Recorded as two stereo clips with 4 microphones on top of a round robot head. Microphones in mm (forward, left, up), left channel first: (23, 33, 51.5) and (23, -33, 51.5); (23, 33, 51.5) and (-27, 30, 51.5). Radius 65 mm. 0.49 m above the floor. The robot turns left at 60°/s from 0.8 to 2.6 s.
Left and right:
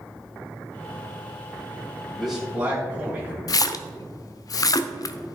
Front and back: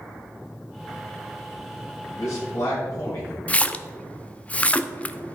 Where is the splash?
65° left, 0.6 m.